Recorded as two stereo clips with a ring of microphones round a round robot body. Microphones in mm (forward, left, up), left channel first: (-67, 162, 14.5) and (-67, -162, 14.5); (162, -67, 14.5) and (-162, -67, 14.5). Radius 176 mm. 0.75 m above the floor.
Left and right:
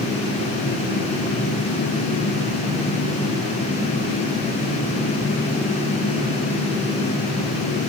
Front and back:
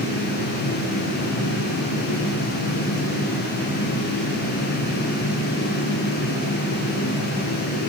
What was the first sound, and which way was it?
Only background noise.